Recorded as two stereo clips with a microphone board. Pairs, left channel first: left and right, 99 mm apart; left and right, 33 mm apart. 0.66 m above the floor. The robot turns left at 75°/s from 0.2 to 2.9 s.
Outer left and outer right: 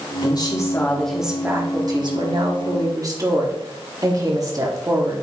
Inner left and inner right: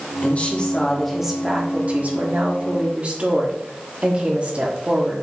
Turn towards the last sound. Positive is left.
turn(degrees=-135)